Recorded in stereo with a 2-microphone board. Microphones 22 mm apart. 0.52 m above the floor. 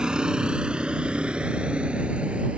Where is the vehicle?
35° right (ahead or behind); by 2.6 s 60° right (ahead or behind).